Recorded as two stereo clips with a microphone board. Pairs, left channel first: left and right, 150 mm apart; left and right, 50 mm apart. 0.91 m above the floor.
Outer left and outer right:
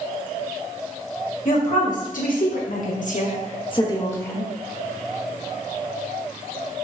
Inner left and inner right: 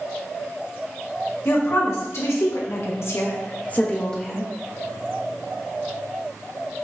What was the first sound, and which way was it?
A woman speaking, 60° left (ahead or behind).